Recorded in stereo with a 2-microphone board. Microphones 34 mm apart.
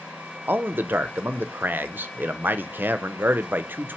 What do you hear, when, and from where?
0.5 s a man speaking: 65° right (ahead or behind), 0.6 m